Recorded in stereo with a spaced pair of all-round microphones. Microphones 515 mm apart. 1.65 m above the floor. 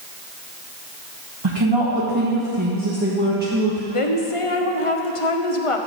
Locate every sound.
1.4 s a woman speaking: 55° right (ahead or behind), 1.8 m; by 3.8 s 10° right (ahead or behind), 1.5 m
3.9 s a woman speaking: 80° left, 1.1 m